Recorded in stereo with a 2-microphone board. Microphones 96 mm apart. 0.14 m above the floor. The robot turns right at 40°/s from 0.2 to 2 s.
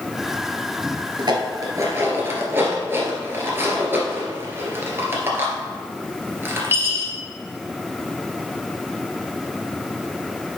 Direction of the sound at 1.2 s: 50° right (ahead or behind).